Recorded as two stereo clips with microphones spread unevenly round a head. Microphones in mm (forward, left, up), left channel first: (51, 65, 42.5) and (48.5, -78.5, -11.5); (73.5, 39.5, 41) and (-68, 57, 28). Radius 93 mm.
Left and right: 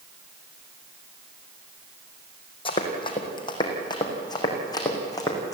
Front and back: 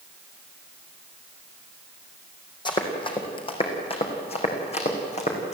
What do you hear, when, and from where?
2.6 s running footsteps: 50° left, 3.5 m; by 5.5 s 30° left, 5 m